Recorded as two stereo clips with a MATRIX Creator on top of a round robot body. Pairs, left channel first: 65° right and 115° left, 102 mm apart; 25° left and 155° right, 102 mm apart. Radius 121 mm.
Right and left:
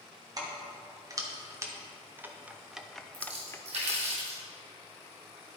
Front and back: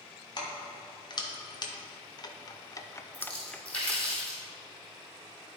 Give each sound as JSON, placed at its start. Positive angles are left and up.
{"t": 0.4, "sound": "keys jangling", "azimuth_deg": 65, "distance_m": 1.8}
{"t": 3.1, "sound": "a splash", "azimuth_deg": 100, "distance_m": 3.0}